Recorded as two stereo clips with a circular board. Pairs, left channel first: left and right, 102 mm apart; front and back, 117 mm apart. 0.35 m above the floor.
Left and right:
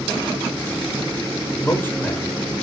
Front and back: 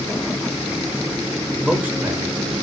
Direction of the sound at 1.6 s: 100° left.